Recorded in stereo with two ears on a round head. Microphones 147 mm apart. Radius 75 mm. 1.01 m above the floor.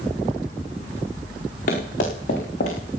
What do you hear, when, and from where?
1.7 s running footsteps: 50° left (ahead or behind), 4.5 m; by 2.8 s 45° left (ahead or behind), 4 m